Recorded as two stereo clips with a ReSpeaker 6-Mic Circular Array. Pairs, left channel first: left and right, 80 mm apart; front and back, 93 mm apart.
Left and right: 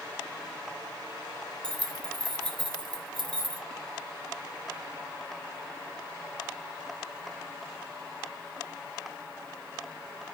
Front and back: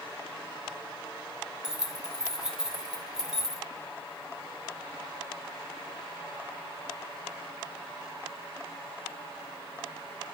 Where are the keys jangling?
95° right, 1.4 m.